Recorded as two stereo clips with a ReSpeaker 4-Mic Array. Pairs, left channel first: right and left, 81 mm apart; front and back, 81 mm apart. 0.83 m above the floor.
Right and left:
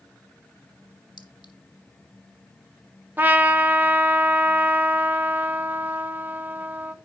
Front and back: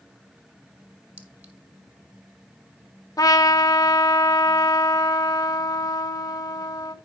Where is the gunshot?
No gunshot in this recording.